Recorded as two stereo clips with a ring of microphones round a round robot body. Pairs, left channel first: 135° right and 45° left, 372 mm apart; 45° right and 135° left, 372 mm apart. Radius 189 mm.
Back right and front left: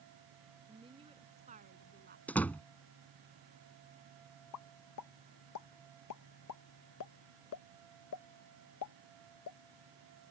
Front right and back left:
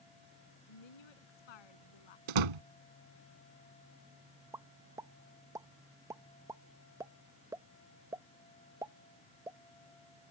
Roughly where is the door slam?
Behind left.